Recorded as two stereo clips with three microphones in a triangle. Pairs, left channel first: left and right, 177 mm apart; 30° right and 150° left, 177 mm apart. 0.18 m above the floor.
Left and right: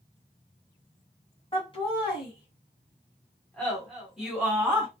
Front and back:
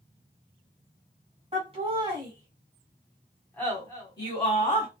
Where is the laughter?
125° left, 1.4 m; by 4.9 s 20° right, 1.4 m.